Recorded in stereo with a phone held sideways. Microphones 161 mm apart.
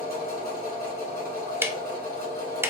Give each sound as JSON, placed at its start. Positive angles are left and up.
{"t": 0.0, "sound": "a machine running", "side_deg": -70, "distance_m": 2.5}
{"t": 1.6, "sound": "ticking", "side_deg": -15, "distance_m": 0.5}